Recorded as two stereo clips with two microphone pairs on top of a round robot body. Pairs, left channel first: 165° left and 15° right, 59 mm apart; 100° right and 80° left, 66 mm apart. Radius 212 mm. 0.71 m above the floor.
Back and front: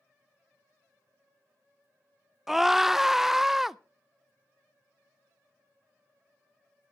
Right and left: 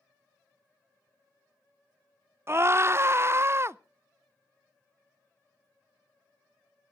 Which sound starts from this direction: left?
A scream, at 2.5 s.